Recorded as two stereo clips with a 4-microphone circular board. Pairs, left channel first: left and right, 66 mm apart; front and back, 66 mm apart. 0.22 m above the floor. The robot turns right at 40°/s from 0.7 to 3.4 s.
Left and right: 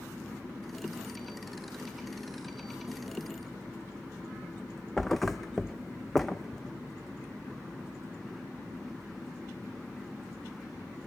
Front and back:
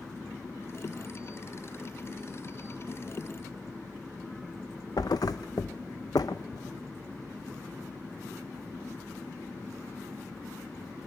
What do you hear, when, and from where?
5.0 s a thud: 5° left, 0.6 m